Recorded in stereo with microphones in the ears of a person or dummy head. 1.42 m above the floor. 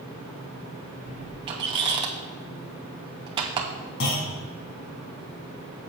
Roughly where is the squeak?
Right.